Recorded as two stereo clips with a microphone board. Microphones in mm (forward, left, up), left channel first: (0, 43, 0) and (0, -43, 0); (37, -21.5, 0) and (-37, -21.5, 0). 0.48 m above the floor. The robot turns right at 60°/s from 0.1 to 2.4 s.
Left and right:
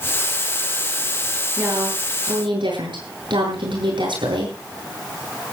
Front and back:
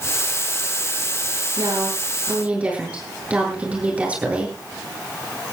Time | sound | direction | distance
1.6 | a woman speaking | 160° right | 9 m